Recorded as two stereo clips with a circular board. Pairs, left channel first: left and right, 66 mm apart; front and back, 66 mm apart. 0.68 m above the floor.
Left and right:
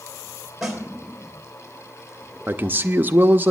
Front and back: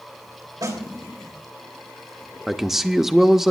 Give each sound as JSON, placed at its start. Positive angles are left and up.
{"t": 0.6, "sound": "a snare drum", "azimuth_deg": -175, "distance_m": 3.0}
{"t": 2.5, "sound": "a man speaking", "azimuth_deg": -100, "distance_m": 0.6}